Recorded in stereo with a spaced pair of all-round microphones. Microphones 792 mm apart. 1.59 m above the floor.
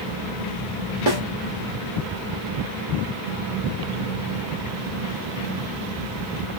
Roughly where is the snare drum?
Right.